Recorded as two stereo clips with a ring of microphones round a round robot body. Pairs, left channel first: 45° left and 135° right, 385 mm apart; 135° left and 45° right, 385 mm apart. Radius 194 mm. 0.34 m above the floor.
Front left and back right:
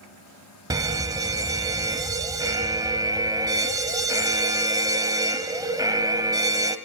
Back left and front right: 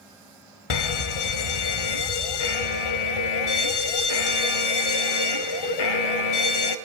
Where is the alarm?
145° left, 1.3 m.